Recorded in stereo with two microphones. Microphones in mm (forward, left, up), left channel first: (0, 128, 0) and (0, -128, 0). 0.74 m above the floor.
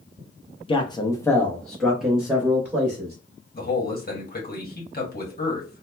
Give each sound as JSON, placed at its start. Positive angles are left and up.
{"t": 0.7, "sound": "a man speaking", "side_deg": 20, "distance_m": 0.5}
{"t": 3.5, "sound": "a man speaking", "side_deg": 35, "distance_m": 1.1}